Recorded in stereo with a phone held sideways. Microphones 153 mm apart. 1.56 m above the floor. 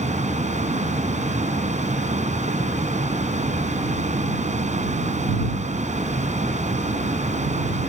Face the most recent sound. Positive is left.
turn(degrees=-50)  # may be behind; listen again after turning